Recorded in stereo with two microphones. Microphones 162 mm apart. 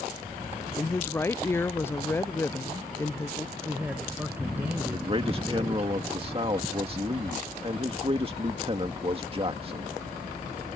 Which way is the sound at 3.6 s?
10° right (ahead or behind).